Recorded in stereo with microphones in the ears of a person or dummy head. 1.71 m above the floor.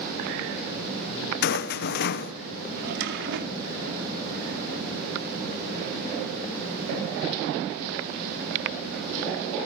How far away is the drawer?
About 2.5 m.